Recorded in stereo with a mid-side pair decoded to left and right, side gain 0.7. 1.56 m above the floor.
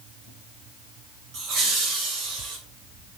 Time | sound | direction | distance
1.3 | laughter | 55° right | 0.5 m